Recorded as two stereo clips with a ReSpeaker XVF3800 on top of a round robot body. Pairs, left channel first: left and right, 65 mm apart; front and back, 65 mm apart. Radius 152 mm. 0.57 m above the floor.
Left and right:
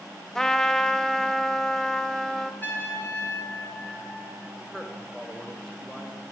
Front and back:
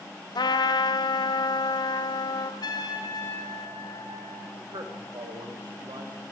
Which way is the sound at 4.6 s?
175° left.